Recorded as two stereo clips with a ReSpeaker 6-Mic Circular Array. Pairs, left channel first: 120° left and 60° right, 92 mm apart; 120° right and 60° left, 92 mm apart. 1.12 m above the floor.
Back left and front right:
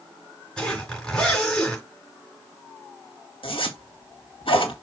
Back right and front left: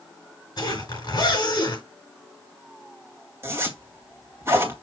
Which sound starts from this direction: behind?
A zipper, at 0.6 s.